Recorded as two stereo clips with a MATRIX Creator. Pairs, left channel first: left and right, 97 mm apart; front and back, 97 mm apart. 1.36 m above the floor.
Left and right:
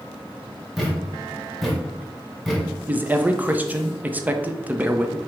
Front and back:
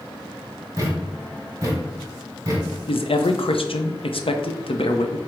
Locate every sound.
0.8 s a thud: 175° right, 1.1 m
2.9 s a man speaking: 15° right, 0.6 m